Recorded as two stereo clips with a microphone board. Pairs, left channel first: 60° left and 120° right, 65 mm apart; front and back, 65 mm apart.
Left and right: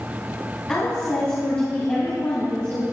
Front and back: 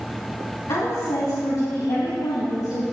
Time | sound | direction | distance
0.7 | a woman speaking | 10° right | 3 m